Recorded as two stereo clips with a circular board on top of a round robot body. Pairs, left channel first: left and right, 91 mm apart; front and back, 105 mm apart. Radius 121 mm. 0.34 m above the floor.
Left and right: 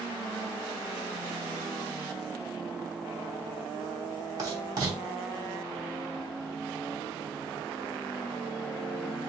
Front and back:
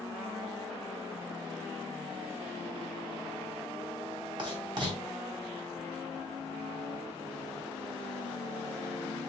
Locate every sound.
4.4 s writing: 135° right, 3 m